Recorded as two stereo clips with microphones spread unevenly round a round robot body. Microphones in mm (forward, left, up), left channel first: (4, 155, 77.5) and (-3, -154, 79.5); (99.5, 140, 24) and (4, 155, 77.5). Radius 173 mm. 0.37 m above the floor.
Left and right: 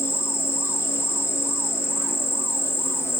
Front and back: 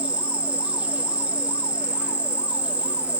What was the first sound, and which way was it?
An insect, 25° left.